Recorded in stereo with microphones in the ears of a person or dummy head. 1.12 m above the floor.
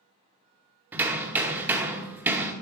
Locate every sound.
0.9 s hammering: 10° right (ahead or behind), 0.6 m